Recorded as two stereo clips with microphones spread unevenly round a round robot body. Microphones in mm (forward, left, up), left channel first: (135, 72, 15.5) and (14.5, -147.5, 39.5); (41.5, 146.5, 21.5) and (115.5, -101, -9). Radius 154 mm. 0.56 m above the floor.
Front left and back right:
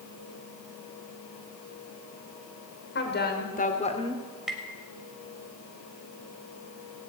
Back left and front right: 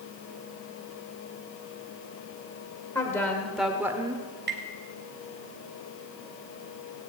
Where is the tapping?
30° right, 3 m.